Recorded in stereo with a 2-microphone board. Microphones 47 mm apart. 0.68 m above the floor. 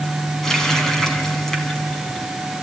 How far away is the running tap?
About 3.5 m.